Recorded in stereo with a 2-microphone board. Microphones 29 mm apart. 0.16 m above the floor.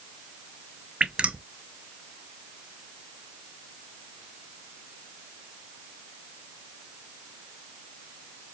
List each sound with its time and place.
1.0 s dripping: 40° right (ahead or behind), 0.5 m